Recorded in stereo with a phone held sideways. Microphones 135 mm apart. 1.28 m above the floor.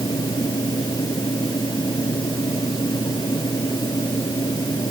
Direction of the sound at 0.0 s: 30° left (ahead or behind).